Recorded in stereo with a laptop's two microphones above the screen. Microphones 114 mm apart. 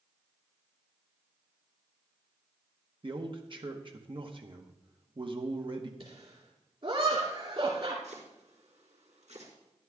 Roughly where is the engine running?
No engine running in this recording.